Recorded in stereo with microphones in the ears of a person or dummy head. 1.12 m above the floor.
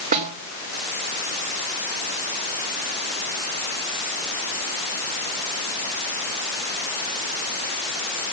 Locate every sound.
0.1 s a snare drum: 45° right (ahead or behind), 3 m